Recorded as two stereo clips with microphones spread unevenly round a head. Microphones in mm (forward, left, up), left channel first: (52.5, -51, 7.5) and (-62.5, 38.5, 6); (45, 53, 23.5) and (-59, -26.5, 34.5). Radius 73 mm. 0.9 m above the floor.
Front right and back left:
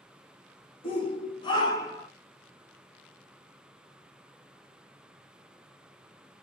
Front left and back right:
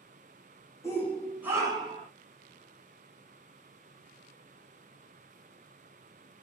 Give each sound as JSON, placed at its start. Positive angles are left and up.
{"t": 0.8, "sound": "a shout", "azimuth_deg": -10, "distance_m": 1.1}